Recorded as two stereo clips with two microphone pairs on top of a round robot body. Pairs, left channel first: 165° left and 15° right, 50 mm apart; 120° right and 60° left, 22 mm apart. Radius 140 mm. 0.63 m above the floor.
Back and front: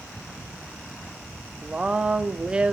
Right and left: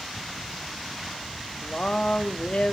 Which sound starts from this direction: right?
A woman speaking, at 1.6 s.